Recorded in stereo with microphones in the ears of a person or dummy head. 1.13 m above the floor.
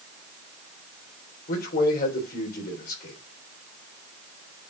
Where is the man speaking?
60° left (ahead or behind), 3.5 m.